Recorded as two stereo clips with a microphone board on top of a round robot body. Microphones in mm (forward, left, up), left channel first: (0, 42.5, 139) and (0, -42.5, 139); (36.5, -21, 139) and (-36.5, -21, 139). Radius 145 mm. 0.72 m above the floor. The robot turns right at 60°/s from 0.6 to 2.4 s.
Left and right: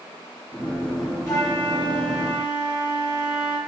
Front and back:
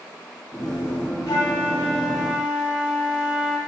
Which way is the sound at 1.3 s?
35° left.